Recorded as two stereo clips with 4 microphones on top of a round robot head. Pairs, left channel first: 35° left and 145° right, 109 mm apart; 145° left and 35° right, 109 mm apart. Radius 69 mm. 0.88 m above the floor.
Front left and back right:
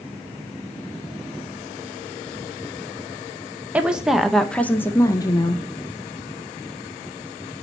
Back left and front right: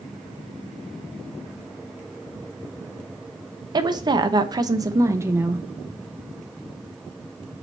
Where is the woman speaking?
70° right, 1.0 m; by 5.6 s 30° left, 0.8 m.